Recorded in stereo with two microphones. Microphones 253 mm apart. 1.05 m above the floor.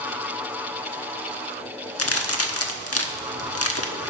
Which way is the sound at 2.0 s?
75° left (ahead or behind).